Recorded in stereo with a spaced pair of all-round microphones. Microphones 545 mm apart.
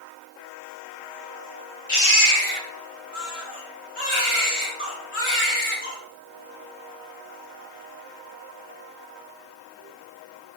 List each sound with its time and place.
1.9 s a baby crying: 70° left (ahead or behind), 1.9 m